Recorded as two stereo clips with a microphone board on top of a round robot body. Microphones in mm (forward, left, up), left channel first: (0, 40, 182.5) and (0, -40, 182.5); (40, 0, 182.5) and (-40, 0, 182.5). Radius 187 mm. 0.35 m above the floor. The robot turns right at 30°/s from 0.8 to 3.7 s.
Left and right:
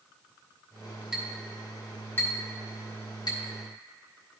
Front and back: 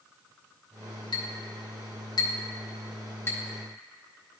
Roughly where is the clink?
Ahead.